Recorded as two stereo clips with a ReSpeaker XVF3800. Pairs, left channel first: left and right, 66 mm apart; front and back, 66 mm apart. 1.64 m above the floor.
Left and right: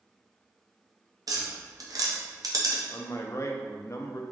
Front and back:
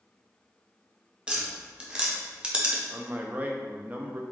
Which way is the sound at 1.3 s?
105° right.